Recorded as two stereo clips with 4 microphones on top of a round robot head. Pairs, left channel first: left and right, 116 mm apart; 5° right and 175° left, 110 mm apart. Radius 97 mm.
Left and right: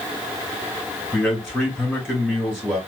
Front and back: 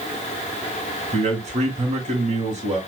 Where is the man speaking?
Straight behind, 2 m.